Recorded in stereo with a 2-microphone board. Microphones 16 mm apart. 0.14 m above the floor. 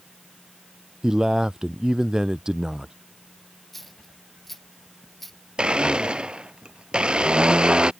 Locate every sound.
1.0 s a man speaking: 40° right (ahead or behind)
3.7 s a dropped coin: 10° left (ahead or behind)
5.6 s a blender: 80° right